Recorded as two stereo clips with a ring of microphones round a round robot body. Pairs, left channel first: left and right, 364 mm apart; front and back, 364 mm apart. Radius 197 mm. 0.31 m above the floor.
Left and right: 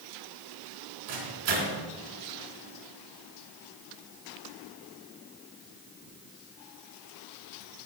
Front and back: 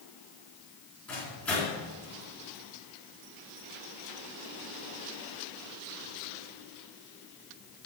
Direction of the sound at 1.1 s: 85° right.